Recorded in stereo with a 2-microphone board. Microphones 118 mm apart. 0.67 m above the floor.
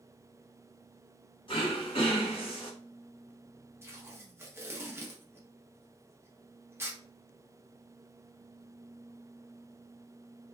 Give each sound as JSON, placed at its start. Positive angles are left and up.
{"t": 1.5, "sound": "throat clearing", "side_deg": 45, "distance_m": 1.1}
{"t": 3.8, "sound": "tape being pulled", "side_deg": -20, "distance_m": 0.7}